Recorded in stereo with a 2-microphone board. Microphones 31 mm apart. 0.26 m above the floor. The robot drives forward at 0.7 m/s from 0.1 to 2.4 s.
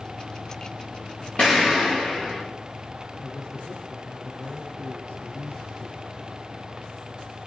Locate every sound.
1.4 s an explosion: 40° left (ahead or behind), 6 m; by 2.4 s 35° left (ahead or behind), 6.5 m
3.2 s a man speaking: 55° left (ahead or behind), 4.5 m